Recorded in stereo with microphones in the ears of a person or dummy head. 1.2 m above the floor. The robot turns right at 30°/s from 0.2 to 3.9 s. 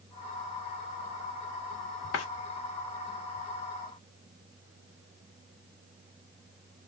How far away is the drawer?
About 1.3 m.